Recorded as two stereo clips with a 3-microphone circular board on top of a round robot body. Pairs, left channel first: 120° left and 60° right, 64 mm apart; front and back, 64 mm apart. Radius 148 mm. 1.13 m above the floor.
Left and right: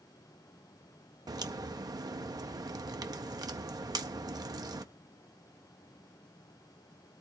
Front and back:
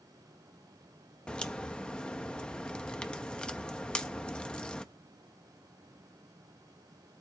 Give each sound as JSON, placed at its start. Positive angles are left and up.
{"t": 1.3, "sound": "a crack", "azimuth_deg": -75, "distance_m": 0.6}